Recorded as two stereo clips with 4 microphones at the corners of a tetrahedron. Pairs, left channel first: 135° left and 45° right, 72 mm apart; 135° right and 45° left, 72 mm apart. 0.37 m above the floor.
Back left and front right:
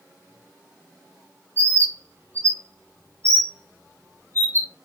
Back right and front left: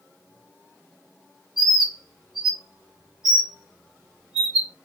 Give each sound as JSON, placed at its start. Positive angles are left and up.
{"t": 1.6, "sound": "a bird", "azimuth_deg": -35, "distance_m": 1.4}